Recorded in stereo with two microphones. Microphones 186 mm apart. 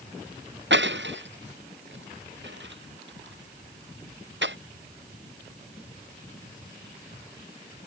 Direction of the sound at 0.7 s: 80° right.